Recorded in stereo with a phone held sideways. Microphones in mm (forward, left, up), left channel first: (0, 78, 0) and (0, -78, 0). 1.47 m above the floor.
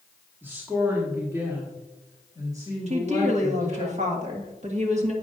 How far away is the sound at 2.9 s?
About 1.7 m.